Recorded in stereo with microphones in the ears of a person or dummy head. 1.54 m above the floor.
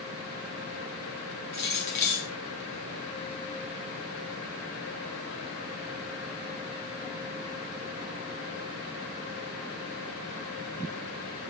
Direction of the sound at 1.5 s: 20° left (ahead or behind).